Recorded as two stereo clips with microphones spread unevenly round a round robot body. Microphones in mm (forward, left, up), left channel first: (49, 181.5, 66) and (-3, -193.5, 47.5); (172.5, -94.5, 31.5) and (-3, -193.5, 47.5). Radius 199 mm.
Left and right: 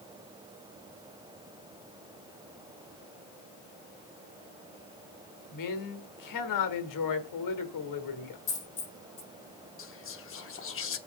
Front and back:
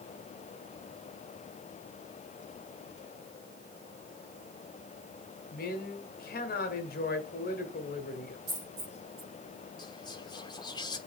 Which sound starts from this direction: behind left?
A dropped coin, at 8.5 s.